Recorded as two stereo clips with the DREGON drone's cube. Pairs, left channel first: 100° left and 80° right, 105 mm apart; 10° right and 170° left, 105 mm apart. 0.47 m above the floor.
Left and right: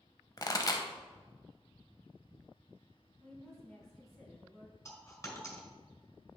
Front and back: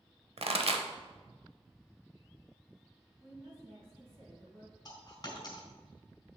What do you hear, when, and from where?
0.4 s a pop: 150° left, 0.7 m
3.2 s a woman speaking: 170° right, 3 m
4.8 s a dropped coin: 40° left, 1.8 m